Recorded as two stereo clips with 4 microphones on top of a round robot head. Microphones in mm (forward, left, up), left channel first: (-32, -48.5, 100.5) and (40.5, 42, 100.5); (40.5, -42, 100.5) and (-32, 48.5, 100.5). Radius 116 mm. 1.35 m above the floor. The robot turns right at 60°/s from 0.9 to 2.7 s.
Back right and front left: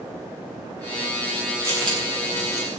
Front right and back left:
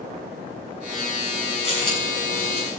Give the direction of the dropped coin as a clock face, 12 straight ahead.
1 o'clock.